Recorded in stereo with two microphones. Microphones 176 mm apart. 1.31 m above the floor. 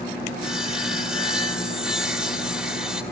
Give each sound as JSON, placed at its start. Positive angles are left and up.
{"t": 0.4, "sound": "sawing", "side_deg": -5, "distance_m": 2.0}